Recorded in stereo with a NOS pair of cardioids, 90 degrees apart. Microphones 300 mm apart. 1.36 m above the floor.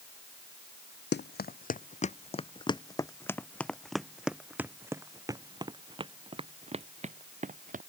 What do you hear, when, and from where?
1.1 s running footsteps: 35° left; by 7.8 s 25° right